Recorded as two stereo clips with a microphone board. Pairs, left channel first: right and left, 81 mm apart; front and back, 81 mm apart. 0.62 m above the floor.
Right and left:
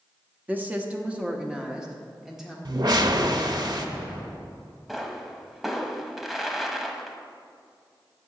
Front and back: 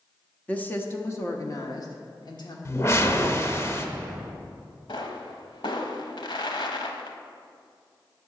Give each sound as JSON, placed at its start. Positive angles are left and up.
{"t": 0.5, "sound": "a woman speaking", "azimuth_deg": 50, "distance_m": 0.8}
{"t": 2.6, "sound": "a whoosh", "azimuth_deg": 55, "distance_m": 0.7}
{"t": 4.9, "sound": "a pop", "azimuth_deg": 5, "distance_m": 0.9}